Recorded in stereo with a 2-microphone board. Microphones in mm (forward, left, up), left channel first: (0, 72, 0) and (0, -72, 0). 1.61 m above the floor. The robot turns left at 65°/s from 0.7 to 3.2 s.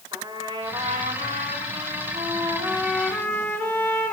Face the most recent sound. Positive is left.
turn(degrees=165)